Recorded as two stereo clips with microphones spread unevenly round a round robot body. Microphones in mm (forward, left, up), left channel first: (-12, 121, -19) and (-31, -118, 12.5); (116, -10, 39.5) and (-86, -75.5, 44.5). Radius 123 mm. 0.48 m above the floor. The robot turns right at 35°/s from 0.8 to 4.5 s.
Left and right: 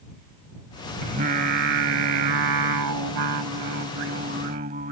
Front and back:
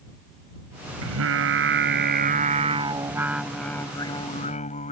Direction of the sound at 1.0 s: 160° right.